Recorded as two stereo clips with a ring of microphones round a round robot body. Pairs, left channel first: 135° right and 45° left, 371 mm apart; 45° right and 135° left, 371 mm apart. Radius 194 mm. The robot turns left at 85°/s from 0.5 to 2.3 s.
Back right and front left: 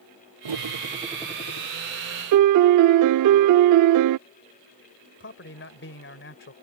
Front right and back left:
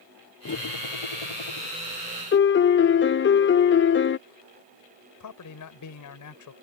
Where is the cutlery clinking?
15° left; by 1.7 s 85° right.